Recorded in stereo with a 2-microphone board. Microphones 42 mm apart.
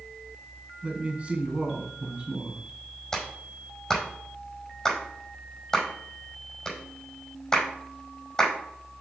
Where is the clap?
15° left (ahead or behind), 5 m.